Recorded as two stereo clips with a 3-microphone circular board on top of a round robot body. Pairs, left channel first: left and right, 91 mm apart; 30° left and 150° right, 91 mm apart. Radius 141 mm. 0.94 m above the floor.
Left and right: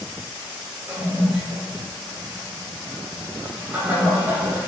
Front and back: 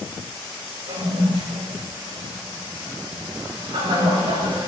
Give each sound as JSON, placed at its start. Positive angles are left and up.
{"t": 0.9, "sound": "a toilet flushing", "azimuth_deg": -160, "distance_m": 4.5}